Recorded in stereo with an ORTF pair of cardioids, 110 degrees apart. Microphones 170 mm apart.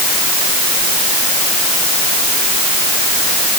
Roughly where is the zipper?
I don't hear a zipper.